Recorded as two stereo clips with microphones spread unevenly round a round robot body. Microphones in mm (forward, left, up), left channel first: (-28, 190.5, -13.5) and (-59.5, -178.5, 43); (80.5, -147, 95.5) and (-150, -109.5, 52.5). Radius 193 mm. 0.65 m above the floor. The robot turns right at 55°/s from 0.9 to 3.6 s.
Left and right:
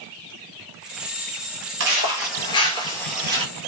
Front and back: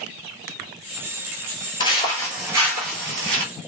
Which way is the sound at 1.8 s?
65° right.